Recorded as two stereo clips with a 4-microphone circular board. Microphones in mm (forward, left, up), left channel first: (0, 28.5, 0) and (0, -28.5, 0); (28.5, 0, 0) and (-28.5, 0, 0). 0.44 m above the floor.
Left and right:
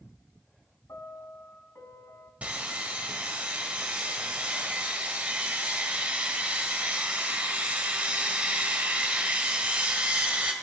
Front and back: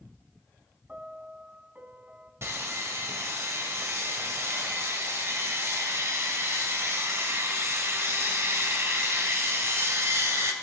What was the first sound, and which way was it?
A piano, 115° left.